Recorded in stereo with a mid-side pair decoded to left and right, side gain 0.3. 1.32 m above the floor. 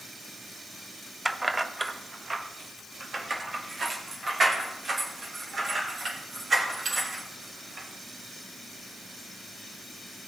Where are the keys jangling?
15° right, 0.7 m; by 7.9 s 55° right, 5 m.